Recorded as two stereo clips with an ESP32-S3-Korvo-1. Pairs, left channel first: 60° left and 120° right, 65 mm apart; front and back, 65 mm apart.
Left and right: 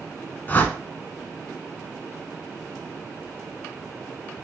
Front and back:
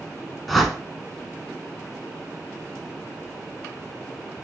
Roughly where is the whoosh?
Left.